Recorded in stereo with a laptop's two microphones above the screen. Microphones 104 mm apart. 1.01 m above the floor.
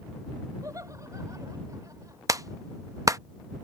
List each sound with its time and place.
0.6 s laughter: 35° right (ahead or behind)
2.3 s a clap: 35° right (ahead or behind)